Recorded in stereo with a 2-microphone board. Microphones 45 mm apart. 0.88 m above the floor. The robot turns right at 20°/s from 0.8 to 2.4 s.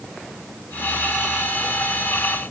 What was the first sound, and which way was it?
Only background noise.